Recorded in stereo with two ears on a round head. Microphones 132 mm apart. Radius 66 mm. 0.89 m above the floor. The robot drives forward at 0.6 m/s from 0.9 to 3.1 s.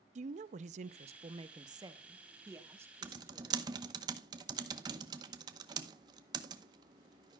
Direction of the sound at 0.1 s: 50° right (ahead or behind).